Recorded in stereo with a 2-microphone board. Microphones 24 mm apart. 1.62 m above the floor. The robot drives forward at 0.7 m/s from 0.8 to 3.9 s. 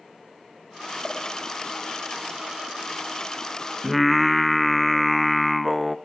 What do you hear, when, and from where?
1.0 s a pop: 5° right (ahead or behind), 5 m
3.8 s singing: centre (ahead or behind), 0.8 m